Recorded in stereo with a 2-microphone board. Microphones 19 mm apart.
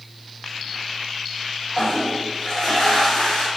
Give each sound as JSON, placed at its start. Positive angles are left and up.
{"t": 1.7, "sound": "a toilet flushing", "side_deg": 35, "distance_m": 1.2}